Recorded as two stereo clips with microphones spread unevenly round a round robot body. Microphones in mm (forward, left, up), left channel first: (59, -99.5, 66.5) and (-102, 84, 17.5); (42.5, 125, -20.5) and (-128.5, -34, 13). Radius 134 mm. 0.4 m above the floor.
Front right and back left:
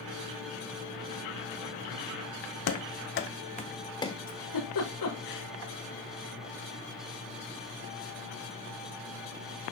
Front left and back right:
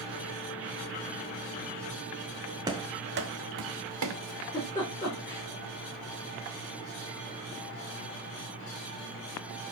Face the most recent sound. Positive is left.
turn(degrees=-35)